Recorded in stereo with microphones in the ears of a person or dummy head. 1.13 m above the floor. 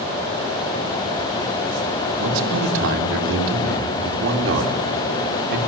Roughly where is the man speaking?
Right.